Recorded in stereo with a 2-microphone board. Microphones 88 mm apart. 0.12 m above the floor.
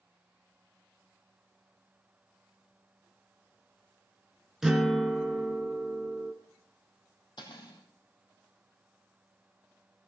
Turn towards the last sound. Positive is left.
turn(degrees=55)  # may be behind; listen again after turning